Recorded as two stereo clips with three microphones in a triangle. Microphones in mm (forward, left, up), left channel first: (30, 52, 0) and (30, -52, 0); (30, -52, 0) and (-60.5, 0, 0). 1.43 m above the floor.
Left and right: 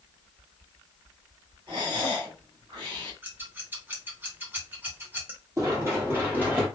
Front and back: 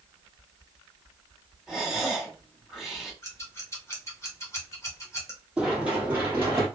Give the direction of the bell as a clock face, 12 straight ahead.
No bell in this recording.